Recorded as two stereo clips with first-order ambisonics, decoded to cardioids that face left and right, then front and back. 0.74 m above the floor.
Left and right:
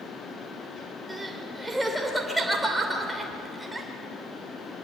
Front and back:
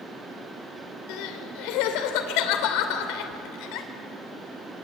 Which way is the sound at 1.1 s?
5° right.